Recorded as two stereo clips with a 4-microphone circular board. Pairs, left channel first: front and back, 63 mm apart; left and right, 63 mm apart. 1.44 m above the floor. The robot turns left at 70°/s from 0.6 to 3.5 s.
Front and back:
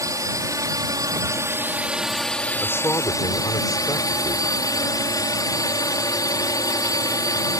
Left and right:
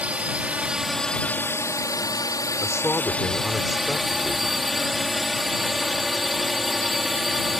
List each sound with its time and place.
0.0 s a drone: 160° right; by 7.6 s 5° right
2.6 s a man speaking: 60° left; by 4.5 s 5° right